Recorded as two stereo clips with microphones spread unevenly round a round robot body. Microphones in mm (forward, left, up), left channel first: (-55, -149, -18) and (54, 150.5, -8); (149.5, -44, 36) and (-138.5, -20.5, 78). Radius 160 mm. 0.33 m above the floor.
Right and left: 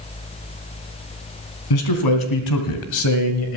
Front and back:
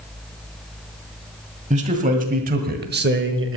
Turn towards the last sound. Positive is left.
turn(degrees=-145)